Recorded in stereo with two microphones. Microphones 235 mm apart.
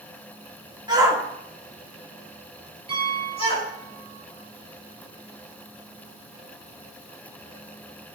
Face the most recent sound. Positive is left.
turn(degrees=-25)  # may be behind; listen again after turning